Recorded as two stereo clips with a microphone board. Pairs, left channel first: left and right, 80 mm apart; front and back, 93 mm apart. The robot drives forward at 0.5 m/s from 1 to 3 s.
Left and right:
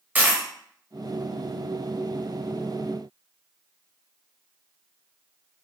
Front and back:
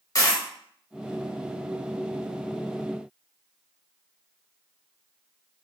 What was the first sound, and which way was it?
A dropped coin, 30° right.